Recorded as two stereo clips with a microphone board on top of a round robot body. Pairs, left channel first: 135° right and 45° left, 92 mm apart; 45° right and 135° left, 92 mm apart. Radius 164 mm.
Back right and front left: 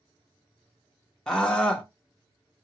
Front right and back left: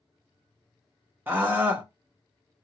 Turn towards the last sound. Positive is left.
turn(degrees=150)